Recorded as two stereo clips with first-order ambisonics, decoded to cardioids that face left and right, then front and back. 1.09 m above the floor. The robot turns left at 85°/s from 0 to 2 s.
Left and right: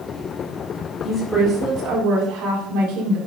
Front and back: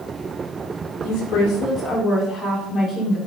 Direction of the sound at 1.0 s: 25° left.